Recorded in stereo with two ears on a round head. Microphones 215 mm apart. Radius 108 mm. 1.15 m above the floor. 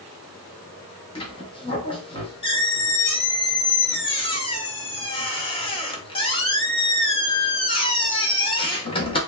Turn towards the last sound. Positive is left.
turn(degrees=20)  # may be behind; listen again after turning